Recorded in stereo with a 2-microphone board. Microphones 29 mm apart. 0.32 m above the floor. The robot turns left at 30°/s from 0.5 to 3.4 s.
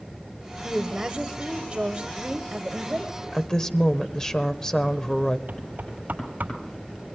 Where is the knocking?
70° right (ahead or behind), 8 m.